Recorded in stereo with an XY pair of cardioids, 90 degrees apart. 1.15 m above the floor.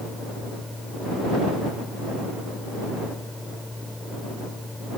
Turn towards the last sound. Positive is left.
turn(degrees=10)